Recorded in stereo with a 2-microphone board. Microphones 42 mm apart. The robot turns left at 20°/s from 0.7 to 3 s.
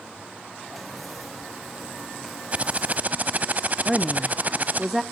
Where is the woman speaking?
5° right (ahead or behind), 0.7 m.